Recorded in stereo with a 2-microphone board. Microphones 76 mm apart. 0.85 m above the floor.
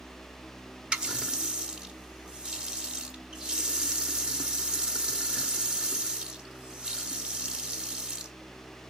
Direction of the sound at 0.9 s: 10° right (ahead or behind).